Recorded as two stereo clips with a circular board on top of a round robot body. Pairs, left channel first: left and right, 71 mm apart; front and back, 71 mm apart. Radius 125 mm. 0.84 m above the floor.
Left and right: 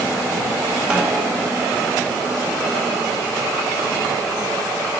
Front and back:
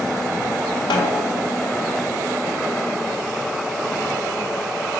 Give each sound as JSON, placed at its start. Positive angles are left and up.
{"t": 0.9, "sound": "a snare drum", "azimuth_deg": -5, "distance_m": 1.8}